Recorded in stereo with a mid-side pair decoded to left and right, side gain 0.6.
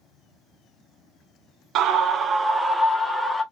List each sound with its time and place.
1.8 s a scream: 60° right, 0.6 m; by 3.4 s straight ahead, 1.2 m